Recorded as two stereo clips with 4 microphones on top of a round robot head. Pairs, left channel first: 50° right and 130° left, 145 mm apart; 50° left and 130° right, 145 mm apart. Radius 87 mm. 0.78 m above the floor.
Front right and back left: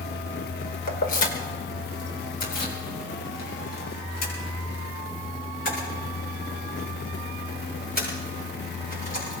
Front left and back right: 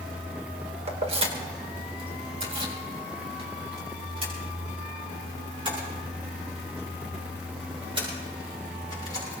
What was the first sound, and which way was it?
Keys jangling, 80° right.